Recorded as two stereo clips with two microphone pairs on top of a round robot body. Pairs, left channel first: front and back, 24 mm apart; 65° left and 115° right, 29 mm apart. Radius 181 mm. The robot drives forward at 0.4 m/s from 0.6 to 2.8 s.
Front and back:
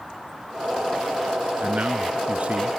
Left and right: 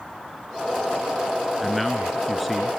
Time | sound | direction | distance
1.6 | a man speaking | 150° left | ?